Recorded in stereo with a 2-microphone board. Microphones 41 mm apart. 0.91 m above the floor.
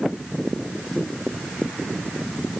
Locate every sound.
Only background noise.